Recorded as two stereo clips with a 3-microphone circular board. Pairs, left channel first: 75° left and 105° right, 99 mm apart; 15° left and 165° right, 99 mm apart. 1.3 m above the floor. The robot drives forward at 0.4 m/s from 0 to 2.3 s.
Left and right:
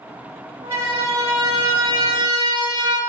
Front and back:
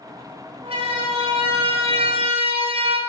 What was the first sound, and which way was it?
A siren, 165° right.